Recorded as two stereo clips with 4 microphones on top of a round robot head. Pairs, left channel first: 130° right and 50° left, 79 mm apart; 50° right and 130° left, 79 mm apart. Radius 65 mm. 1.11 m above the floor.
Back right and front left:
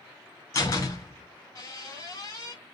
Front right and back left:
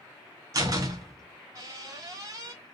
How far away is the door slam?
About 3 m.